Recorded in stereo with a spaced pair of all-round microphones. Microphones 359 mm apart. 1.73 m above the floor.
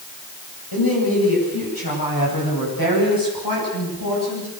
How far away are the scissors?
I don't hear scissors.